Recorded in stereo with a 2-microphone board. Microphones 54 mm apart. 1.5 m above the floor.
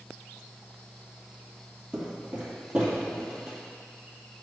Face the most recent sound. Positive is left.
turn(degrees=-25)  # may be behind; listen again after turning